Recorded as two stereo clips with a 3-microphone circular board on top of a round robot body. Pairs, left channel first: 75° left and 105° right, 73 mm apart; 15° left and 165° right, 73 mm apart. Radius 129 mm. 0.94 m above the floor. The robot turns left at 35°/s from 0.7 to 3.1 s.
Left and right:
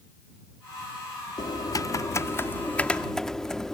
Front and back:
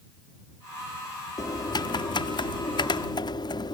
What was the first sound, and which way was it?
Typing on a keyboard, 50° left.